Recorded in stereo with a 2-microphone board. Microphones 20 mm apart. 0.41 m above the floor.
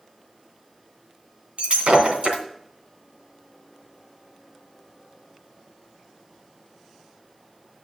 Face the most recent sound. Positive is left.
turn(degrees=-80)